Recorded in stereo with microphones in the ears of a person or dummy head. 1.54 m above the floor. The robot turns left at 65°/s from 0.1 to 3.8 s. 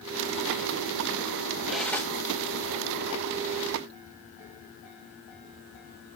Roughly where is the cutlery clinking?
Centre.